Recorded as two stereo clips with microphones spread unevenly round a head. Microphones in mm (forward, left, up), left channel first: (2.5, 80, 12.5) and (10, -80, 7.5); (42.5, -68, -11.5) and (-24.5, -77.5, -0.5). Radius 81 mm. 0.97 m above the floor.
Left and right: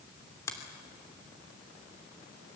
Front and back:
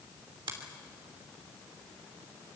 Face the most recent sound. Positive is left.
turn(degrees=165)